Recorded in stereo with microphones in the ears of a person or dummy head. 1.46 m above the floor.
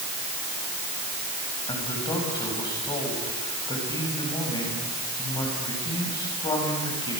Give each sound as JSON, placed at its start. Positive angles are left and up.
{"t": 1.7, "sound": "a man speaking", "side_deg": 25, "distance_m": 8.5}